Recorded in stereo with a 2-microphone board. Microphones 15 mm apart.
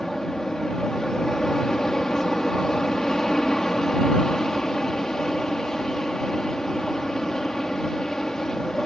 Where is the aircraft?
40° left (ahead or behind).